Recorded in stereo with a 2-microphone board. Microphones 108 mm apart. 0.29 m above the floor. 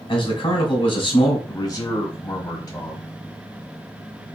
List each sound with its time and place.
0.1 s a man speaking: 55° left (ahead or behind), 1.8 m
1.5 s a man speaking: 35° left (ahead or behind), 1.2 m